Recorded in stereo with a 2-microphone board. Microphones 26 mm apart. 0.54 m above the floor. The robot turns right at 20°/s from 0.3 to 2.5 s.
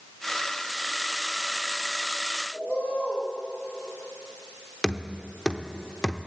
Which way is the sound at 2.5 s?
80° left.